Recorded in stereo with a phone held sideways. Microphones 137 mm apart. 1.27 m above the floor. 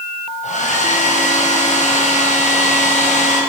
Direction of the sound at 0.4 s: 65° left (ahead or behind).